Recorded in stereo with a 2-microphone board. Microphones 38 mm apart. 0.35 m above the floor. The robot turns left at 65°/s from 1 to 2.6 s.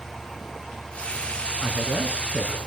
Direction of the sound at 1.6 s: 75° right.